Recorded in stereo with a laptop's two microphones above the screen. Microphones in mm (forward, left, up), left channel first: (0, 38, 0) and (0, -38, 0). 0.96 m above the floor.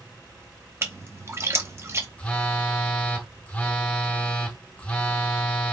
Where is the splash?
35° right (ahead or behind), 0.6 m.